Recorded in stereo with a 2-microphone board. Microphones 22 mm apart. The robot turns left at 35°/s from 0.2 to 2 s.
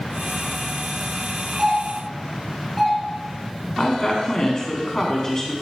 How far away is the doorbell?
About 2.5 m.